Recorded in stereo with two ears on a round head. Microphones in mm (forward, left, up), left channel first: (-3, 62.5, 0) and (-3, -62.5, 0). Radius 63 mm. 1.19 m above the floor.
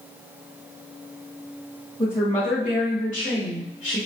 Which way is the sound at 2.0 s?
20° left (ahead or behind).